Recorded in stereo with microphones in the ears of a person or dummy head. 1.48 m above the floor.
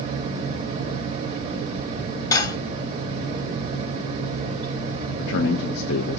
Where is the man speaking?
60° left (ahead or behind), 0.9 m.